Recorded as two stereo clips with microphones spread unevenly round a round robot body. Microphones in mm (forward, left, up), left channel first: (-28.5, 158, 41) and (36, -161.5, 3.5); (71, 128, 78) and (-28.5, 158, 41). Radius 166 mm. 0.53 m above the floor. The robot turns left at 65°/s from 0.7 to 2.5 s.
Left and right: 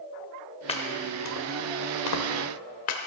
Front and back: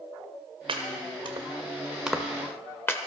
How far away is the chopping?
About 1.6 m.